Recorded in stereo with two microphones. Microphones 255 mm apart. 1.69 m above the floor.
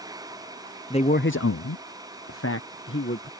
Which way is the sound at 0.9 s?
20° left (ahead or behind).